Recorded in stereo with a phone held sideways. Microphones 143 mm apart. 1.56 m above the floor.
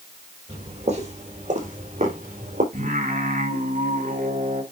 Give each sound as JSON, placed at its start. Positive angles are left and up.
{"t": 0.5, "sound": "footsteps", "side_deg": -45, "distance_m": 4.5}
{"t": 2.7, "sound": "singing", "side_deg": -70, "distance_m": 3.5}